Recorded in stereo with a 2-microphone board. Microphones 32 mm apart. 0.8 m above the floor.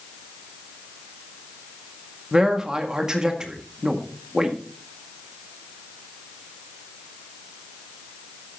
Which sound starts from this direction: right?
A man speaking, at 2.3 s.